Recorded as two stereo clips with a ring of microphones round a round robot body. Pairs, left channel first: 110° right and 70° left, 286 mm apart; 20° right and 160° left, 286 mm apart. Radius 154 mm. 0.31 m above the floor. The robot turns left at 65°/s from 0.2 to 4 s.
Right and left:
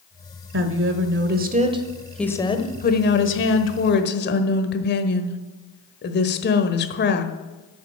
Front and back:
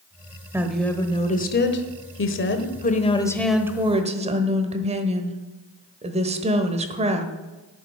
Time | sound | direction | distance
0.5 | a woman speaking | 80° left | 1.2 m